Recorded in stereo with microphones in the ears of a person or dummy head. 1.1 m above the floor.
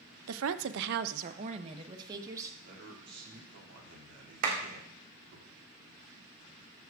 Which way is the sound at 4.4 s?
55° right (ahead or behind).